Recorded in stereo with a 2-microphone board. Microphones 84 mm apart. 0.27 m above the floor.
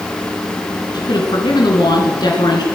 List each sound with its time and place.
0.9 s a woman speaking: 60° left (ahead or behind), 3 m